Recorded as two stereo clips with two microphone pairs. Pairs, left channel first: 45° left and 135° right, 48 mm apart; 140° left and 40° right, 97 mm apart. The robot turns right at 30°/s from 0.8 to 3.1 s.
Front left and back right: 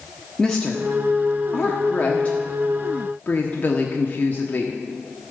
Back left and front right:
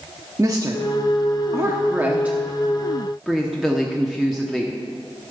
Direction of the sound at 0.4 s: 25° right.